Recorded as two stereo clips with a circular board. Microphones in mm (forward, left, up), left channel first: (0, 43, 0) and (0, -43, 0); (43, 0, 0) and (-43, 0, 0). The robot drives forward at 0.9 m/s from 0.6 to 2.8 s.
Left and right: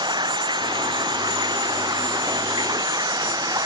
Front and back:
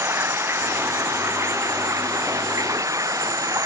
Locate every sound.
0.0 s running water: 120° right; by 3.7 s 130° right